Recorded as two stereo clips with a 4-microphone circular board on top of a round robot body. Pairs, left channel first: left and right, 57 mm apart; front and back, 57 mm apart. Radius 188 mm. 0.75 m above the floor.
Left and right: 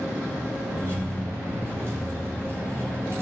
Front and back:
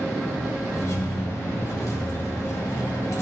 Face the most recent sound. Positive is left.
turn(degrees=-40)